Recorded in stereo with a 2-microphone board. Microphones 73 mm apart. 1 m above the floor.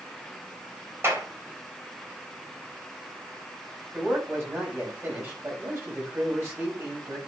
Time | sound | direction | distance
1.0 | a clap | 35° right (ahead or behind) | 3.5 m
3.9 | a man speaking | 35° right (ahead or behind) | 5.5 m